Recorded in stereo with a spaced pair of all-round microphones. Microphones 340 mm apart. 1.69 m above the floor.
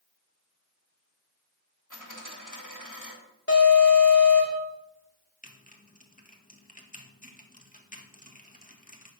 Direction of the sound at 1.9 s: 60° left (ahead or behind).